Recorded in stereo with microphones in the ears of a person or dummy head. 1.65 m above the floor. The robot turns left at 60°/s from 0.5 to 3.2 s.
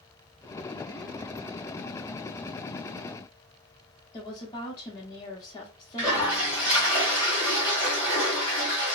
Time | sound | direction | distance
4.1 | a woman speaking | 20° left (ahead or behind) | 0.7 m
6.0 | a toilet flushing | 15° left (ahead or behind) | 1.6 m